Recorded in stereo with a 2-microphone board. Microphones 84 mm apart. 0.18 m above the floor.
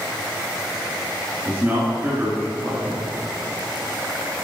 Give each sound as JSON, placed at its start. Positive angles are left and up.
{"t": 1.4, "sound": "a man speaking", "side_deg": -25, "distance_m": 2.5}